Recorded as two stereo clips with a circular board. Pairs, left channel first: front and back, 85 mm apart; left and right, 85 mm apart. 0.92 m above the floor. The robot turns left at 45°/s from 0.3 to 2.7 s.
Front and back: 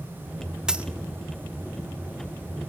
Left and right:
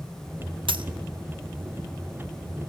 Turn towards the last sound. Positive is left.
turn(degrees=170)